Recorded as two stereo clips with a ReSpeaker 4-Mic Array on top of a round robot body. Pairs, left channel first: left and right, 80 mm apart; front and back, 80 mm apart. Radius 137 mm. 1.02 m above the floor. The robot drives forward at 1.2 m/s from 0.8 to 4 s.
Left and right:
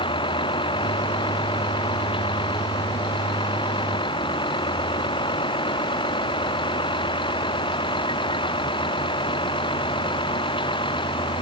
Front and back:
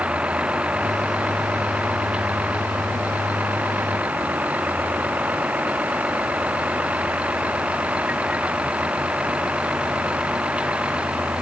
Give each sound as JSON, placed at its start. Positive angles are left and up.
{"t": 0.0, "sound": "a vehicle", "azimuth_deg": 105}